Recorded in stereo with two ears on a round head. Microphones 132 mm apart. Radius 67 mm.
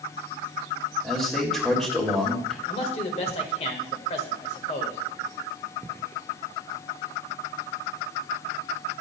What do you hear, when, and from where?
1.0 s a man speaking: centre (ahead or behind), 2.5 m
2.7 s a man speaking: 40° left (ahead or behind), 1.8 m